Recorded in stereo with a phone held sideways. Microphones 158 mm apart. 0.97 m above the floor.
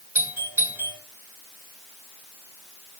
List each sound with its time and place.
0.1 s a doorbell: 10° right (ahead or behind), 5 m